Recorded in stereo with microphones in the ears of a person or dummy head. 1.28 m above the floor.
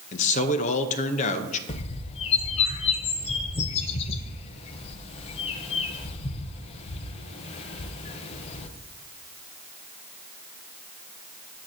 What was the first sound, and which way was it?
A man speaking, 40° left (ahead or behind).